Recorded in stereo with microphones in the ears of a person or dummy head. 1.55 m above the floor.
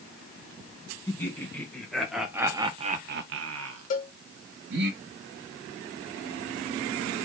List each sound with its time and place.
1.1 s laughter: 20° left (ahead or behind), 1.4 m; by 4.9 s 65° right (ahead or behind), 1.3 m
3.9 s a cowbell: 50° left (ahead or behind), 0.6 m